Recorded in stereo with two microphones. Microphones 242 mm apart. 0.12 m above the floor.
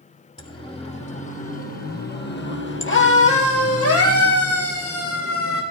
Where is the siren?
20° left (ahead or behind), 4.5 m; by 5.6 s 70° left (ahead or behind), 5 m.